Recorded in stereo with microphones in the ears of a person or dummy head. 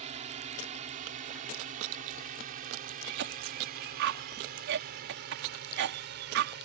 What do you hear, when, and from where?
0.0 s a drone: 35° right (ahead or behind); by 6.7 s 60° right (ahead or behind)
3.0 s a cough: 60° right (ahead or behind)